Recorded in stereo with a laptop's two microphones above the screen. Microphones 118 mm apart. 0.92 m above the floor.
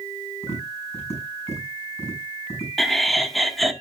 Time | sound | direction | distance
0.4 | tapping | 25° left (ahead or behind) | 7 m
2.8 | laughter | centre (ahead or behind) | 1.6 m